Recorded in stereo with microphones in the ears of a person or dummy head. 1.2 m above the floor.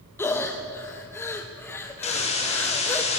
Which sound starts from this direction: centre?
Breathing, at 0.2 s.